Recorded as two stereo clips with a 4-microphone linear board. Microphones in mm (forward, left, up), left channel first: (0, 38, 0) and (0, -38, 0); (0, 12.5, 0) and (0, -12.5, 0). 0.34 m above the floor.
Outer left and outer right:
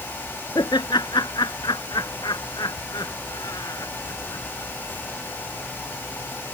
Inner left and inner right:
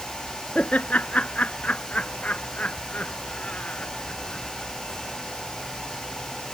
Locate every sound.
0.6 s laughter: 75° left (ahead or behind); by 4.7 s 50° left (ahead or behind)